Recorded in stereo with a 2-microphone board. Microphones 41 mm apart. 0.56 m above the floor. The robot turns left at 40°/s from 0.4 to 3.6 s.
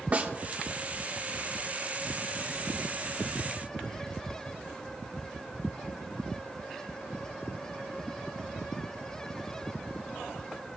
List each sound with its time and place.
0.1 s a snare drum: 35° right (ahead or behind), 1.1 m